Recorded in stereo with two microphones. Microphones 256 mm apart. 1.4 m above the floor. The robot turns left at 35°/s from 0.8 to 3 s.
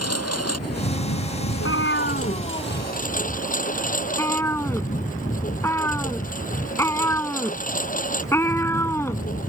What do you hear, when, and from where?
0.0 s a lawn mower: 110° left; by 9.5 s 30° left
1.5 s a cat meowing: 60° left (ahead or behind); by 9.2 s 10° left (ahead or behind)